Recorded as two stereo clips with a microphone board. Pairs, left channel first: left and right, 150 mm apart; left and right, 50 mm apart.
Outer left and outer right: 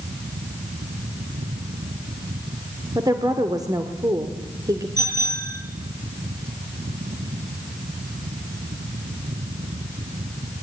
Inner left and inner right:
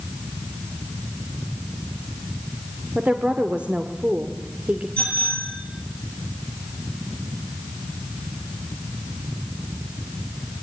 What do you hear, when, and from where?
3.0 s a woman speaking: 25° right (ahead or behind), 1.7 m
5.0 s a bicycle bell: 25° left (ahead or behind), 9.5 m